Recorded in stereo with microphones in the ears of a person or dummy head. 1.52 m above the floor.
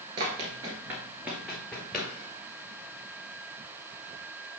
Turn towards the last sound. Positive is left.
turn(degrees=5)  # may be behind; listen again after turning